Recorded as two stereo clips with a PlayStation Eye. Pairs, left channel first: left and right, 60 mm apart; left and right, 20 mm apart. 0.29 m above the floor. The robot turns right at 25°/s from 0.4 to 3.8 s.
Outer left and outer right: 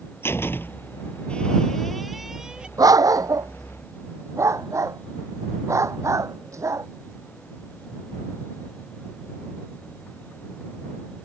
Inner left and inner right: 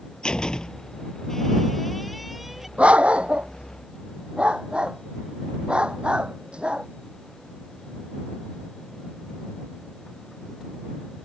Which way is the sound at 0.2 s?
40° left (ahead or behind).